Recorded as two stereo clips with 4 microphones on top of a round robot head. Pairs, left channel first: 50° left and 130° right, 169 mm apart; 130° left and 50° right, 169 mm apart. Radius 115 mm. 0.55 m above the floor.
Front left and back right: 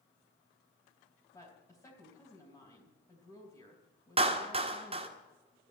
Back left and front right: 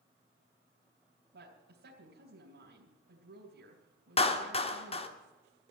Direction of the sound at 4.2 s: Straight behind.